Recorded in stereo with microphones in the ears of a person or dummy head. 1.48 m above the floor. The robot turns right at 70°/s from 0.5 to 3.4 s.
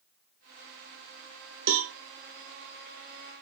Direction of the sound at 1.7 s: 55° right (ahead or behind).